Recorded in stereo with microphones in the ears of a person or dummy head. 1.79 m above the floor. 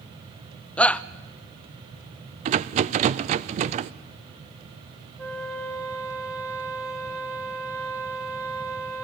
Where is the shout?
10° left (ahead or behind), 0.6 m.